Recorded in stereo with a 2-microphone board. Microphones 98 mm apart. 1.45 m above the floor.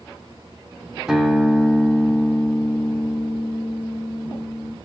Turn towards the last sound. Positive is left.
turn(degrees=-10)  # may be behind; listen again after turning